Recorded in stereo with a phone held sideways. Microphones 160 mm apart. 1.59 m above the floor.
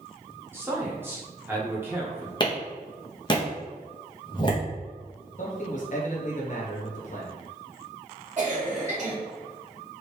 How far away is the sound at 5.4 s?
About 1.3 m.